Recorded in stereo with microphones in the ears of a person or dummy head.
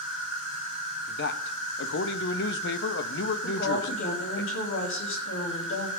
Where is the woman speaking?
65° left (ahead or behind), 3.5 m.